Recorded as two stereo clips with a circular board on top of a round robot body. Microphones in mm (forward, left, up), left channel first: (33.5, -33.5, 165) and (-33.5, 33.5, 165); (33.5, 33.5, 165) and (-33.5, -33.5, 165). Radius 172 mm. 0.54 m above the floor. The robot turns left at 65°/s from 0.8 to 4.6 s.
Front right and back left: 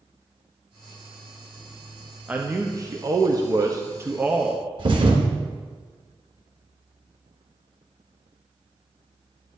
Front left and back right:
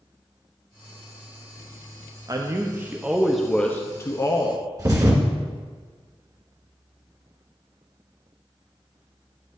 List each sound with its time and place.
2.3 s a man speaking: 155° right, 0.9 m; by 4.6 s 55° left, 0.9 m
4.8 s a thud: 170° left, 1.5 m